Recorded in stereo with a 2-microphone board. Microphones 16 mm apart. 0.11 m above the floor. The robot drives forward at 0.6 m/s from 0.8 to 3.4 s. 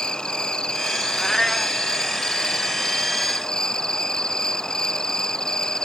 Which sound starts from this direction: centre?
A cat meowing, at 1.2 s.